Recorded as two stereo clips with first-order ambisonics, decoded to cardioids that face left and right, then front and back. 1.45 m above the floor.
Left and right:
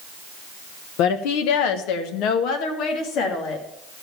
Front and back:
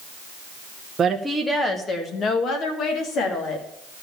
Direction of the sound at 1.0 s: 110° left.